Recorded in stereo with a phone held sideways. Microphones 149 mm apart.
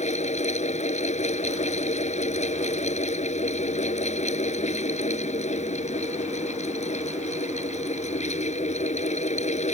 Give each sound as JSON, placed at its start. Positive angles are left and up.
{"t": 0.0, "sound": "a fan", "side_deg": 50}